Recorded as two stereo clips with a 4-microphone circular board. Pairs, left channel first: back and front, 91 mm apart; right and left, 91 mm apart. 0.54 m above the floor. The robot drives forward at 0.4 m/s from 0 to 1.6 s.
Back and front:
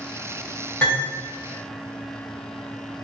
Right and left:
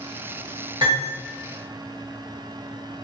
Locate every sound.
0.8 s cutlery clinking: 120° left, 1.7 m